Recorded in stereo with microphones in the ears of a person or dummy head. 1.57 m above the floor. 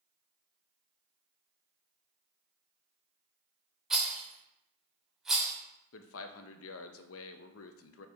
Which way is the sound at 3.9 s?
Centre (ahead or behind).